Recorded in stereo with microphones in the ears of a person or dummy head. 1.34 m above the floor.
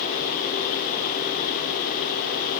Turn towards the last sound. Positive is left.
No sound to turn to.